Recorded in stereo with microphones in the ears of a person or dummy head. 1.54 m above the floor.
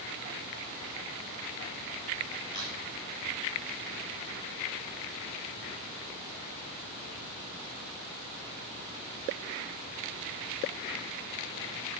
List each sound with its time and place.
2.5 s a crack: 35° left (ahead or behind), 4 m